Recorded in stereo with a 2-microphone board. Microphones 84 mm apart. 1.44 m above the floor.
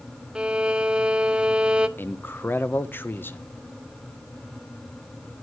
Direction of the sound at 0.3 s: 10° right (ahead or behind).